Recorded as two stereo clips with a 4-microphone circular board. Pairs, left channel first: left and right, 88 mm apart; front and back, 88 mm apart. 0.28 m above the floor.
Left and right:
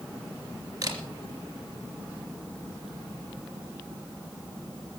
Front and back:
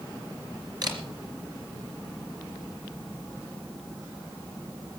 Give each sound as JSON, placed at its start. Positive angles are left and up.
{"t": 0.8, "sound": "a camera shutter", "azimuth_deg": -140, "distance_m": 3.5}